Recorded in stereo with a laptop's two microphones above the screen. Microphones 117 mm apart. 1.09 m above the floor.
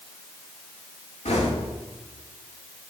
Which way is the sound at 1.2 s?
70° left (ahead or behind).